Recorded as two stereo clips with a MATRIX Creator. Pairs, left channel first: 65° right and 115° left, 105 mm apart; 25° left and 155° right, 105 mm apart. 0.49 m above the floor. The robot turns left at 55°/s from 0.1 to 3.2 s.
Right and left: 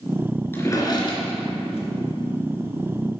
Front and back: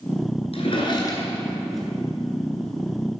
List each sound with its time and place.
0.5 s a drawer: 5° left, 1.9 m; by 1.8 s 70° right, 1.9 m